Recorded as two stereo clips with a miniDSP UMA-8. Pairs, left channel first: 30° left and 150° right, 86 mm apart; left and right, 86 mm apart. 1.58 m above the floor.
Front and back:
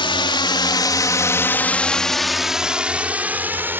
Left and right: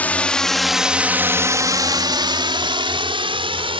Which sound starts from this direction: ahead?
A drone, at 0.0 s.